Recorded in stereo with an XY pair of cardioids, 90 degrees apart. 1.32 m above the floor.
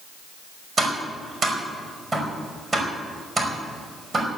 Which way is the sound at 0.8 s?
35° right.